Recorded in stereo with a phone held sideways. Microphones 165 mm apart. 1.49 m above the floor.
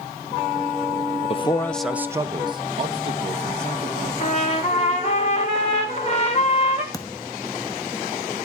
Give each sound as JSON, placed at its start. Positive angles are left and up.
{"t": 1.3, "sound": "a man speaking", "side_deg": 40, "distance_m": 0.5}
{"t": 4.2, "sound": "a trumpet", "side_deg": 40, "distance_m": 2.0}
{"t": 6.9, "sound": "a thud", "side_deg": 20, "distance_m": 0.8}